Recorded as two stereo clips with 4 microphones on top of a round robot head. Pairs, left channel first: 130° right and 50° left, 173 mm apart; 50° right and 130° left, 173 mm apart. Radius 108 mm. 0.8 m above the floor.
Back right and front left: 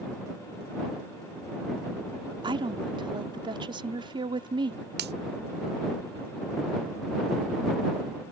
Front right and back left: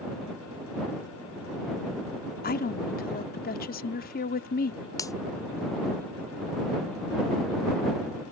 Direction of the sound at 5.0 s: 20° left.